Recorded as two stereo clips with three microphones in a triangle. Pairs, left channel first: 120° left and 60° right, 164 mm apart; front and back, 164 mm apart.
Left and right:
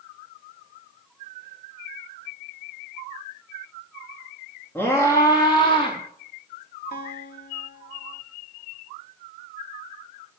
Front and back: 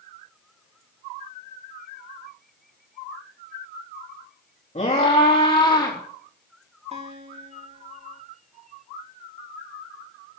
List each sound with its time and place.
4.8 s a scream: 45° left, 4 m; by 6.0 s 65° left, 4.5 m
6.9 s a guitar: 135° left, 3.5 m